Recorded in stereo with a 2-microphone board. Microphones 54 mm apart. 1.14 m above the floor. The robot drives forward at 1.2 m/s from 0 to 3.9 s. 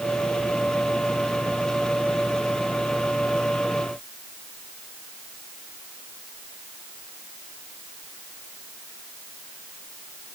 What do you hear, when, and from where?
Only background noise.